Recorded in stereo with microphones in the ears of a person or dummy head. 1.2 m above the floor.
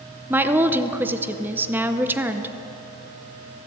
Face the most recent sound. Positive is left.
turn(degrees=-10)  # may be behind; listen again after turning